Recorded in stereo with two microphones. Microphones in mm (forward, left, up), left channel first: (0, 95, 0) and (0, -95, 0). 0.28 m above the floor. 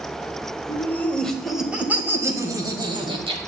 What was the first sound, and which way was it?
Laughter, 15° left (ahead or behind).